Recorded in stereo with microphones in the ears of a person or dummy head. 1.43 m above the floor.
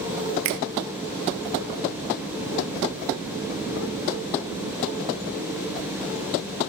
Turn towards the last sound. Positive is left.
turn(degrees=-55)  # may be behind; listen again after turning